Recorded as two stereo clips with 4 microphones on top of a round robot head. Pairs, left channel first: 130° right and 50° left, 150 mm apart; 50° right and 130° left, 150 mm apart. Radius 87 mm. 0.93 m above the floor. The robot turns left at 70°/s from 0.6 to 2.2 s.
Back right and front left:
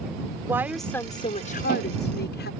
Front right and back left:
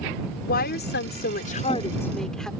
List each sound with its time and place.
0.5 s a woman speaking: 25° right; by 2.5 s 140° right